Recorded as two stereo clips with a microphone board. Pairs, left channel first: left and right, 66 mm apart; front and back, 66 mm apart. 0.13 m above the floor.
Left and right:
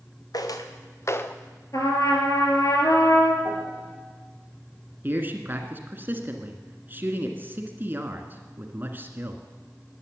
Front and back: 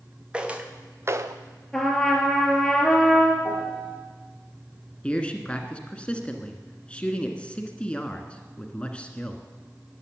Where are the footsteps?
105° left, 1.8 m; by 1.4 s 155° left, 0.9 m.